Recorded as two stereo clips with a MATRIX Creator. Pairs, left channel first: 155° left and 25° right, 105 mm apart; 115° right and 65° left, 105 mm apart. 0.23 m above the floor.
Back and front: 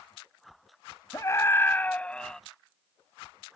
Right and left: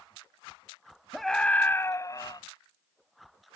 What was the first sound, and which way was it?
A scream, 160° left.